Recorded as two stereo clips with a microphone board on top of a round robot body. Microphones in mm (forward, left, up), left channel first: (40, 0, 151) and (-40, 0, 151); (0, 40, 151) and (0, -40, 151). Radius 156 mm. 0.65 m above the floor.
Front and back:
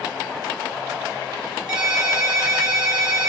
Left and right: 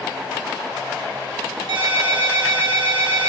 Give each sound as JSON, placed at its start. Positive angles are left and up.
{"t": 1.7, "sound": "a ringtone", "azimuth_deg": -100, "distance_m": 4.0}